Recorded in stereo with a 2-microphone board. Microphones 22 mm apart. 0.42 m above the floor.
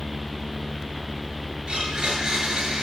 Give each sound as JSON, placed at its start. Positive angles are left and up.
{"t": 1.7, "sound": "a blender", "side_deg": -45, "distance_m": 7.0}